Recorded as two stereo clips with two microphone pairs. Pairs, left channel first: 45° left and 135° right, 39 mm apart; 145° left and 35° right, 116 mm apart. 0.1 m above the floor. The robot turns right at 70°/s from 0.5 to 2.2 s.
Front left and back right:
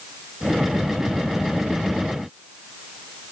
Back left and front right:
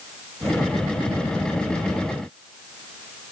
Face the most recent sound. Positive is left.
No sound to turn to.